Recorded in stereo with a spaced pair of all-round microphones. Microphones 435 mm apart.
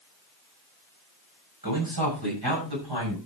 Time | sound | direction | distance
1.6 | a man speaking | 50° right (ahead or behind) | 6.5 m